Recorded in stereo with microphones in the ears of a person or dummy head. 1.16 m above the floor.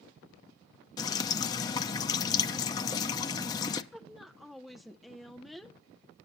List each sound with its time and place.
1.0 s dripping: 25° left (ahead or behind), 0.6 m
3.9 s a woman speaking: 5° left (ahead or behind), 0.5 m